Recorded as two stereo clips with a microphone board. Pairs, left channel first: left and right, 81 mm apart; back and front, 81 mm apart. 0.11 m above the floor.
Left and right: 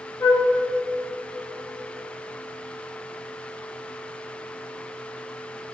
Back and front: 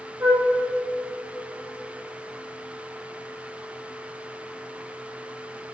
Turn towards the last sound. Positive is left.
turn(degrees=55)